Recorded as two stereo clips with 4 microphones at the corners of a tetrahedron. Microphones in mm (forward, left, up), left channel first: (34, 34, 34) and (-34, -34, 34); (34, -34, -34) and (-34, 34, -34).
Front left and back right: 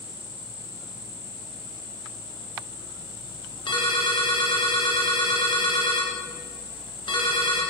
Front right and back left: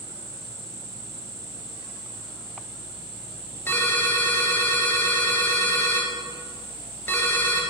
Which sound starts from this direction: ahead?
A ringtone, at 3.7 s.